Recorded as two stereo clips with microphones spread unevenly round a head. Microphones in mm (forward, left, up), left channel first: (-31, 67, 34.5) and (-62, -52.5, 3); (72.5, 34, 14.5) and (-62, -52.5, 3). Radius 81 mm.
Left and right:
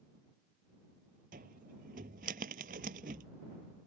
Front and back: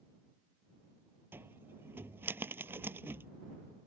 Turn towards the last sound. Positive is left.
turn(degrees=-70)